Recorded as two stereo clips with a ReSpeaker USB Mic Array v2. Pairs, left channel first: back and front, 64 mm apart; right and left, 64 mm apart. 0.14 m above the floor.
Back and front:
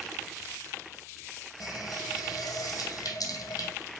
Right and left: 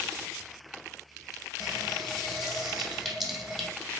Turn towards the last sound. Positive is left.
turn(degrees=-175)